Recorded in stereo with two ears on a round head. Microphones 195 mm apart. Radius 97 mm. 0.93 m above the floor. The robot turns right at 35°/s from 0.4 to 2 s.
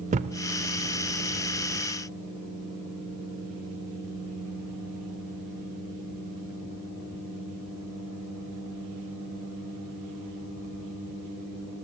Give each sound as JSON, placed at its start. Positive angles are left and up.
{"t": 0.1, "sound": "a thud", "side_deg": -35, "distance_m": 0.7}